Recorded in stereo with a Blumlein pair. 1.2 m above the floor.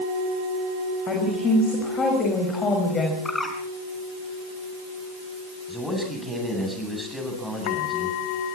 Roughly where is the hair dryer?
I don't hear a hair dryer.